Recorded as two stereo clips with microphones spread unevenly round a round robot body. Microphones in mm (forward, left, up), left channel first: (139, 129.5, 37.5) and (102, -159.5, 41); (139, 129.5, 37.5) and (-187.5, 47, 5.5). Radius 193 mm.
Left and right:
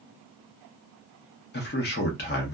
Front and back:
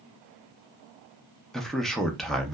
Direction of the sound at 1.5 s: 110° left.